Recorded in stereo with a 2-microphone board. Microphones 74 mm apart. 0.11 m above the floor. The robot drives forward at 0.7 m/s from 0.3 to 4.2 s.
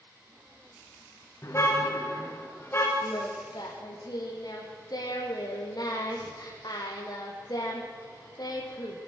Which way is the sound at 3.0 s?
70° left (ahead or behind).